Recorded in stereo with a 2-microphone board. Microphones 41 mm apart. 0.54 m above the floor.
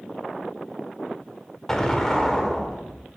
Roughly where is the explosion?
Centre.